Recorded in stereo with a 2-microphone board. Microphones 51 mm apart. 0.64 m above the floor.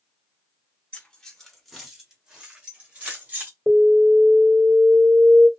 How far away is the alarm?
About 3 m.